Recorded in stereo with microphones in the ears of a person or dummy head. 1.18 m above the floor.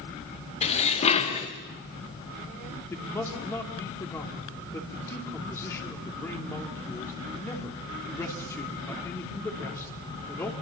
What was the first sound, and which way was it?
Dishes clattering, 35° left (ahead or behind).